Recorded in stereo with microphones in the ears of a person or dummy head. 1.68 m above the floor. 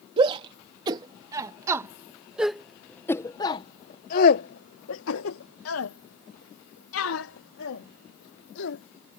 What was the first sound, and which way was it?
A shout, 30° right (ahead or behind).